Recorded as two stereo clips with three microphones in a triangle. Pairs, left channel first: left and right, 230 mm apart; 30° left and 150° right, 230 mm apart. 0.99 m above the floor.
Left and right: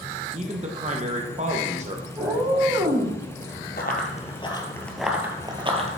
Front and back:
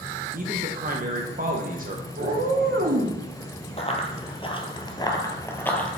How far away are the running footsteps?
About 1.3 m.